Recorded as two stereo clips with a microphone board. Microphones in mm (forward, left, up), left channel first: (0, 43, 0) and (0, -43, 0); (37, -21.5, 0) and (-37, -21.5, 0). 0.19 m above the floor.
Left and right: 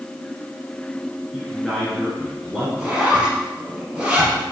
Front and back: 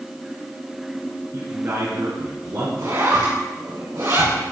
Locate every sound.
1.3 s a man speaking: straight behind, 2.5 m
2.8 s a zipper: 160° right, 4 m